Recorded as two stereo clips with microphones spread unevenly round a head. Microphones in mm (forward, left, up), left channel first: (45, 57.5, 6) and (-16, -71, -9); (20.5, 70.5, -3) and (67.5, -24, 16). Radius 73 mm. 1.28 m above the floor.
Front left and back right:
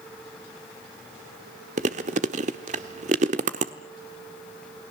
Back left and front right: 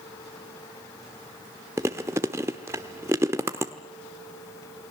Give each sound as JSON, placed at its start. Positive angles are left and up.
{"t": 1.8, "sound": "chewing", "azimuth_deg": -110, "distance_m": 1.1}